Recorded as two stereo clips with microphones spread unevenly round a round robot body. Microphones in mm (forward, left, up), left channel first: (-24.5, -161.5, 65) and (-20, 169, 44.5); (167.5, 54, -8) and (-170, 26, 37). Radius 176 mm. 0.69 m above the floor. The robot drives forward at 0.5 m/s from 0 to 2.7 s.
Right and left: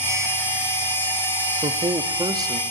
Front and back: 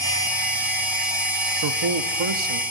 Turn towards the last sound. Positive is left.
turn(degrees=170)